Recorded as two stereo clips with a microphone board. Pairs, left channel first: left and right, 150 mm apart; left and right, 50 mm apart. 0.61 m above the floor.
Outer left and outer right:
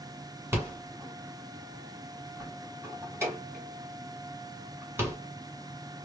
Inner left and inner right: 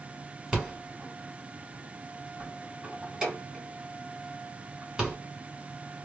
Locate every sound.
0.5 s a rattle: 15° right (ahead or behind), 2 m